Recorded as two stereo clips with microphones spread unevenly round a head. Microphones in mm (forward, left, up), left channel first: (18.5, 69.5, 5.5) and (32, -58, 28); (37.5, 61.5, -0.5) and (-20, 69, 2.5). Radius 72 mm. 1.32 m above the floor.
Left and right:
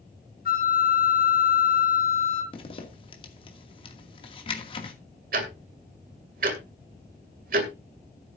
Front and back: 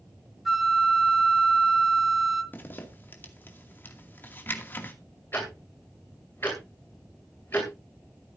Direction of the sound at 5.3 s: 80° right.